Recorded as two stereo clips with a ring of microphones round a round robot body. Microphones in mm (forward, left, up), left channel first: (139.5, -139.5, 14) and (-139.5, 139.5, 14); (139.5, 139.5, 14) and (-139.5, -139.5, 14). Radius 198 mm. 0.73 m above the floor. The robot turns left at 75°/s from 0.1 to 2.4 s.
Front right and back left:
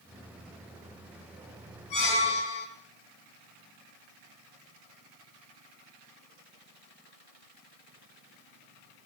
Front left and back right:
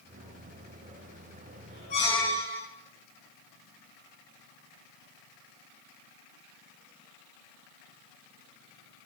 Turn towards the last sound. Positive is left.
turn(degrees=-60)